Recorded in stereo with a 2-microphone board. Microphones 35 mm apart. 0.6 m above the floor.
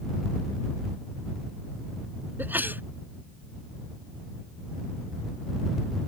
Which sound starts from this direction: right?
A sneeze, at 2.4 s.